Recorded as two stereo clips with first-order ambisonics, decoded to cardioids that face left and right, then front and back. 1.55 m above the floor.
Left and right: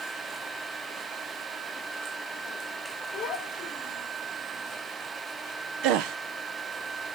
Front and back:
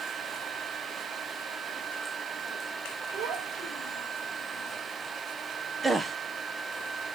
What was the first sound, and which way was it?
A child speaking, 150° left.